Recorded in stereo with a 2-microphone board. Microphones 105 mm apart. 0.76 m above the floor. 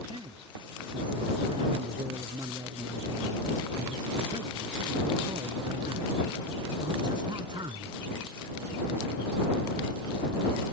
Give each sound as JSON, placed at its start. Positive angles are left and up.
{"t": 0.1, "sound": "a man speaking", "side_deg": -50}